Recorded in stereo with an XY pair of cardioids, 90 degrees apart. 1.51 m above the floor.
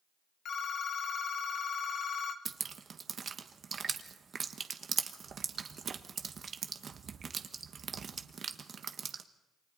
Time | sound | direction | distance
0.5 | a phone ringing | 70° left | 1.4 m
2.5 | dripping | 50° right | 1.3 m